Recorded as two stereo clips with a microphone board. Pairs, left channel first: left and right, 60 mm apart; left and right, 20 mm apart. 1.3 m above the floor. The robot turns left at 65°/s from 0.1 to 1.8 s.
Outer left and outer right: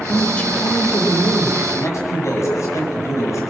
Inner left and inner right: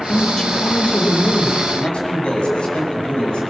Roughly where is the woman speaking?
Behind.